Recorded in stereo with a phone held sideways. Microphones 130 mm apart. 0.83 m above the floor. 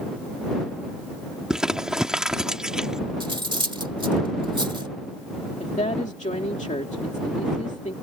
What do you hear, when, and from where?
1.5 s crumpling: 5° right (ahead or behind)
3.2 s cutlery clinking: 40° right (ahead or behind)
5.6 s a woman speaking: 65° left (ahead or behind)